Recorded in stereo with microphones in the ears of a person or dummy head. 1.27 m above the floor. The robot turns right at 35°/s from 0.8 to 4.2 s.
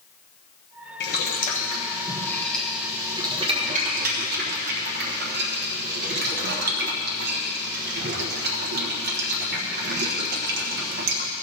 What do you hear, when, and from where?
1.0 s boiling: 55° left (ahead or behind), 1.2 m; by 11.3 s 50° right (ahead or behind), 1.2 m